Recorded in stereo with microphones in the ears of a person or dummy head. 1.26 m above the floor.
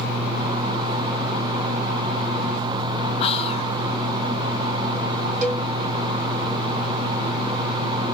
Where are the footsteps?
I don't hear footsteps.